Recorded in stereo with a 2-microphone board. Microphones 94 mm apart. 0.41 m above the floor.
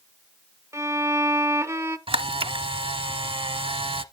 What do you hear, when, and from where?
0.7 s a violin: 30° right (ahead or behind), 0.8 m
2.1 s a camera shutter: 70° right (ahead or behind), 0.7 m